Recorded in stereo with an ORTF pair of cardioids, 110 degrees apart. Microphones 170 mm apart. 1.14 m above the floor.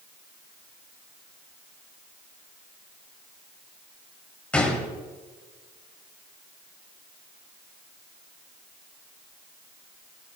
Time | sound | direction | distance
4.5 | a gunshot | 10° left | 4 m